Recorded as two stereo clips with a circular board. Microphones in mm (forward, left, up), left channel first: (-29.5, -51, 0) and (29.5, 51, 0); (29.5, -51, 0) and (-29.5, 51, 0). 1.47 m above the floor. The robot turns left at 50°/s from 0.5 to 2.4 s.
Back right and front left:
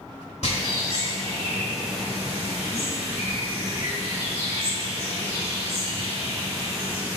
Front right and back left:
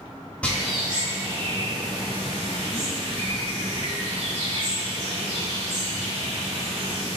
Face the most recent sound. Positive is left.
turn(degrees=125)